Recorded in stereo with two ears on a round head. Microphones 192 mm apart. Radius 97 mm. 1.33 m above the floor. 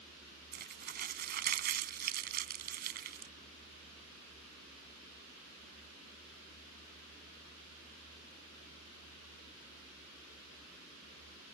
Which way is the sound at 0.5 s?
45° right (ahead or behind).